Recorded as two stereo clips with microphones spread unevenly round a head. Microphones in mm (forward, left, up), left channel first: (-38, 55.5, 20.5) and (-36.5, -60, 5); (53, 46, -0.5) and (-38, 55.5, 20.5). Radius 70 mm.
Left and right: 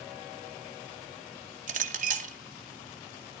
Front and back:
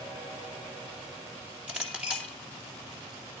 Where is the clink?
105° right, 2.0 m.